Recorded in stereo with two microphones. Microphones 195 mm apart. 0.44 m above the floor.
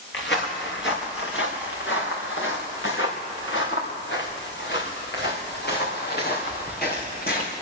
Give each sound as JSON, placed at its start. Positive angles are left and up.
{"t": 0.1, "sound": "footsteps", "side_deg": 70, "distance_m": 3.5}